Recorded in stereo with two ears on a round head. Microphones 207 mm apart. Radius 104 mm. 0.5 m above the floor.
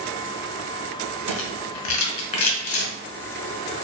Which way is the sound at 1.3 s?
60° left (ahead or behind).